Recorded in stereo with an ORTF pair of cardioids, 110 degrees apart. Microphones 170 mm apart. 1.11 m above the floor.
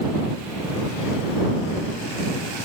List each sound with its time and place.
Only background noise.